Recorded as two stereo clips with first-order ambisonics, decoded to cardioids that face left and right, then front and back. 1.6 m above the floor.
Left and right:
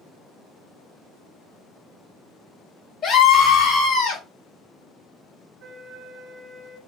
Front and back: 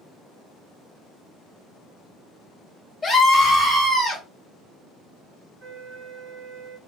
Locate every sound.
3.0 s a scream: 75° left, 0.5 m; by 4.2 s 120° left, 1.4 m
5.6 s a flute: 165° right, 1.7 m